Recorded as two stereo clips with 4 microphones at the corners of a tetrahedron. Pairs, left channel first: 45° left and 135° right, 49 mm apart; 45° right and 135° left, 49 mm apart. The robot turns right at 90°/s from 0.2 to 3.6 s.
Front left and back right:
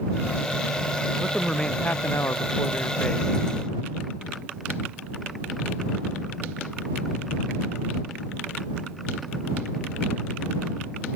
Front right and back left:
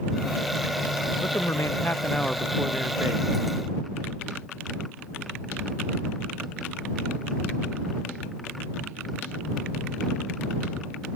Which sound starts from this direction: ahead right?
A man speaking, at 1.2 s.